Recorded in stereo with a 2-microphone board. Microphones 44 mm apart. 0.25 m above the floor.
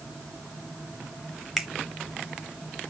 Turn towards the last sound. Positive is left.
turn(degrees=-5)  # may be behind; listen again after turning